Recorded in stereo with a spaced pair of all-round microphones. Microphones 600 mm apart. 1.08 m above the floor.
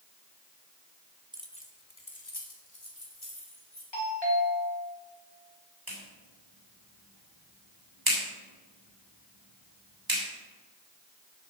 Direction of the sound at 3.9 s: 45° left (ahead or behind).